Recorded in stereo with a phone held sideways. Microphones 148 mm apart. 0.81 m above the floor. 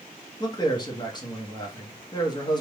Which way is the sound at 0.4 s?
30° left (ahead or behind).